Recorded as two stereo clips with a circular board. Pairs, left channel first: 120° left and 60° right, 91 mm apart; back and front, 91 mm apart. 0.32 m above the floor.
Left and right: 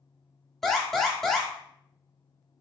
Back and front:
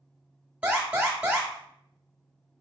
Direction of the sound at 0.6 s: 40° left.